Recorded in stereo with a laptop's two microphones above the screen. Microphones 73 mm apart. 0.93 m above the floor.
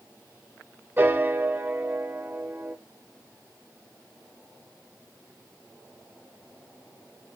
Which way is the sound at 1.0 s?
25° right (ahead or behind).